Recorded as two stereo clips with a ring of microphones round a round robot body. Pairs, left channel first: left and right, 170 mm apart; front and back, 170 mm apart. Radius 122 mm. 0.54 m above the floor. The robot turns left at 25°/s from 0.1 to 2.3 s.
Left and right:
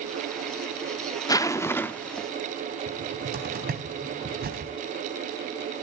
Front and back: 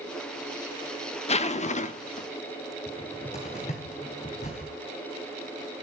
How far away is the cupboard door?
About 3.5 m.